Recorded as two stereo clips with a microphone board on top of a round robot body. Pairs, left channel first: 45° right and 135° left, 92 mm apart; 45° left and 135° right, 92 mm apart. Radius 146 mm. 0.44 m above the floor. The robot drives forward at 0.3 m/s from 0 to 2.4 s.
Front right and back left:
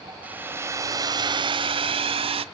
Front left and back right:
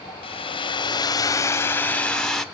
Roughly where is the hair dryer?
Ahead left.